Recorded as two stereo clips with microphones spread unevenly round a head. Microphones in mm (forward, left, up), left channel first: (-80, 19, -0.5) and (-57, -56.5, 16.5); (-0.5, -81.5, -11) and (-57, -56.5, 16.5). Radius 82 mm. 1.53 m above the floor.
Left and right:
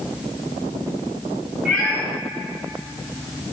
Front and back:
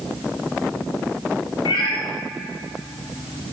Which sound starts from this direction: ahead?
A cat meowing, at 1.6 s.